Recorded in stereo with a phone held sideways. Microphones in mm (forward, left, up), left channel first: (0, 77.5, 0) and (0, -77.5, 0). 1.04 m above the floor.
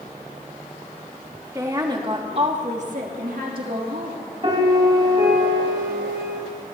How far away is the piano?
About 5 m.